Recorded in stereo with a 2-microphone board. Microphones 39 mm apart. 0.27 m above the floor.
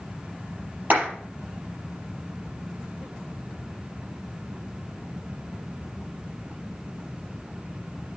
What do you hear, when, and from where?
0.9 s a clap: 45° right (ahead or behind), 5 m